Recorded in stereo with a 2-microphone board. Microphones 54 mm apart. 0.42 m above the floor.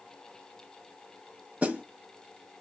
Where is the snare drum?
30° right (ahead or behind), 0.6 m.